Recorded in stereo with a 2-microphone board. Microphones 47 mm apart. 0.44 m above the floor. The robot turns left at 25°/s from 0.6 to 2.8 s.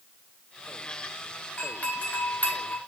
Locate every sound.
1.6 s a doorbell: 30° left (ahead or behind), 2.5 m; by 2.8 s 45° left (ahead or behind), 2.5 m